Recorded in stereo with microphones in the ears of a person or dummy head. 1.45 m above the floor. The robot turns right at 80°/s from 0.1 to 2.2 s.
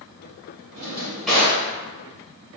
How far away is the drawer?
About 1.0 m.